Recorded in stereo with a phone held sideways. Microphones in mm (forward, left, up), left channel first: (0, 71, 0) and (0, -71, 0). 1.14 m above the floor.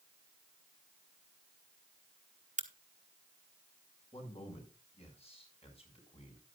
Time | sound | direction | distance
2.6 | a crack | 60° right (ahead or behind) | 1.3 m
4.1 | a man speaking | 45° left (ahead or behind) | 5.5 m